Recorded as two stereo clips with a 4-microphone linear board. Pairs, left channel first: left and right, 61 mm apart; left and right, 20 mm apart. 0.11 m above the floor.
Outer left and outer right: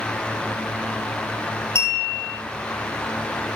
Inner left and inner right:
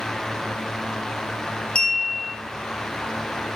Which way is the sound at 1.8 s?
55° left (ahead or behind).